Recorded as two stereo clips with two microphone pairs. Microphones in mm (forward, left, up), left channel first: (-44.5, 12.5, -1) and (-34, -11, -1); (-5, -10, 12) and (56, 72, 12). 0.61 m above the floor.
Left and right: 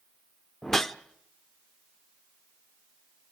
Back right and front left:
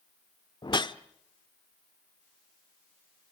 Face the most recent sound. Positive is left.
turn(degrees=-170)